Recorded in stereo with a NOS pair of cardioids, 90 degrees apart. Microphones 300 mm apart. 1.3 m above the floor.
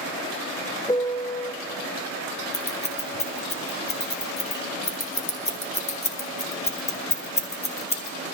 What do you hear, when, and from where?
0.9 s a piano: 15° left, 0.6 m
2.5 s scissors: 20° left, 1.6 m